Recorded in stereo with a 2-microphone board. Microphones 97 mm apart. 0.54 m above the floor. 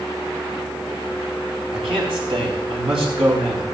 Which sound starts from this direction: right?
A man speaking, at 1.7 s.